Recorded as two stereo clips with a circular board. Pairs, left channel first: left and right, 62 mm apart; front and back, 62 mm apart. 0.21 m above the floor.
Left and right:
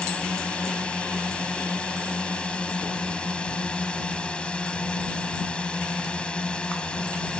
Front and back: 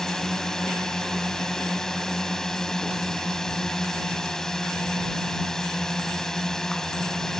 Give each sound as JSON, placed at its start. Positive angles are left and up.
{"t": 0.0, "sound": "a drone", "azimuth_deg": 65}